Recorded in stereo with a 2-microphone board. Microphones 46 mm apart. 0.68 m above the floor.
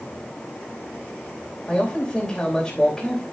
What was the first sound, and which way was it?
A man speaking, 5° left (ahead or behind).